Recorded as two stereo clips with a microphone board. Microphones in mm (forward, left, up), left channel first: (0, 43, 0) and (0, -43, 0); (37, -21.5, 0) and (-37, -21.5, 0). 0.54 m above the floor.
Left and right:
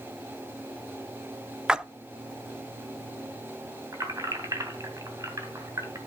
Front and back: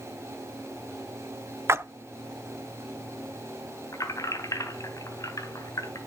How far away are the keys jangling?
About 3 m.